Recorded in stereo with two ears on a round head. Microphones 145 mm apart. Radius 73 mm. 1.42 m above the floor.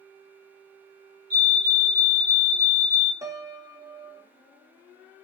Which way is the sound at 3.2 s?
20° right (ahead or behind).